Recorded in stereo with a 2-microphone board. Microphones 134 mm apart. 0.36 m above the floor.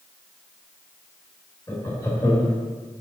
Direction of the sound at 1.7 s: 20° left (ahead or behind).